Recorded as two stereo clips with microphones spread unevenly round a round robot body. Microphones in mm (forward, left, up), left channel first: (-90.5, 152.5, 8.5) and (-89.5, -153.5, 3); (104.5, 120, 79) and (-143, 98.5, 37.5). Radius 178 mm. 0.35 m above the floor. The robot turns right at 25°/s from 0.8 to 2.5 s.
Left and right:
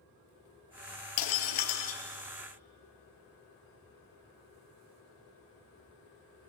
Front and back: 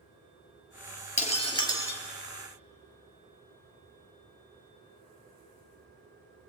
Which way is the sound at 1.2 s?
65° left.